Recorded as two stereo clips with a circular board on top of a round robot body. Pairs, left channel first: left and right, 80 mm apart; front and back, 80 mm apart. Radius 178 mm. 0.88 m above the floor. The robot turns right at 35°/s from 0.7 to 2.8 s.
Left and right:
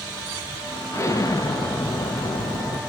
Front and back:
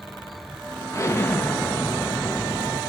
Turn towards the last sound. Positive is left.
turn(degrees=110)